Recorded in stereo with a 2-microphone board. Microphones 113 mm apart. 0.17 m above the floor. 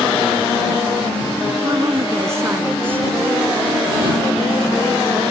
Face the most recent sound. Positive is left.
turn(degrees=-5)  # may be behind; listen again after turning